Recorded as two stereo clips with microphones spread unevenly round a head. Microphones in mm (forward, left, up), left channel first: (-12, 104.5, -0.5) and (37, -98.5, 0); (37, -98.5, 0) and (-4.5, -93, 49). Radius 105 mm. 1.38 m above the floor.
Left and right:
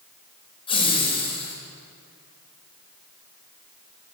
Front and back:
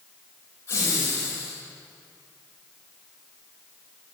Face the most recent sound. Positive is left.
turn(degrees=35)